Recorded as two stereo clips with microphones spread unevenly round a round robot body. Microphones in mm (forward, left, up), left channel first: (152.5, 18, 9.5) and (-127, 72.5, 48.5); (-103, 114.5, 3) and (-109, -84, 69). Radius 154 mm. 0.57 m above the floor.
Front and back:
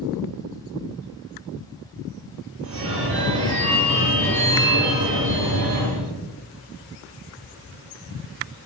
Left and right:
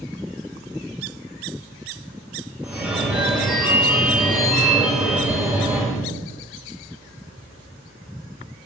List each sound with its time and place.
2.6 s a phone ringing: straight behind, 2.5 m